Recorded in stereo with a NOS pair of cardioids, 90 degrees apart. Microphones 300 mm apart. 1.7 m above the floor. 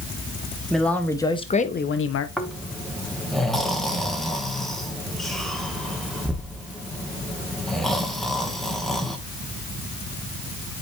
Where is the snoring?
Straight ahead, 1.3 m.